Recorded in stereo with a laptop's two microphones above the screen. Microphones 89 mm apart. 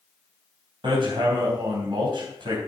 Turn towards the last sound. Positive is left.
turn(degrees=-65)  # may be behind; listen again after turning